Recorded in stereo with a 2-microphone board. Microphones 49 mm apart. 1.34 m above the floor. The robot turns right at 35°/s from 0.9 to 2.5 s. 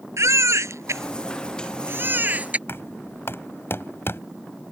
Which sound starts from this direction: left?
Knocking, at 2.7 s.